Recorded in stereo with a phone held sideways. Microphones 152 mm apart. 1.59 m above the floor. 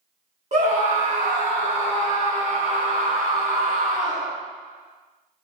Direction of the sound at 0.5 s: 50° right (ahead or behind).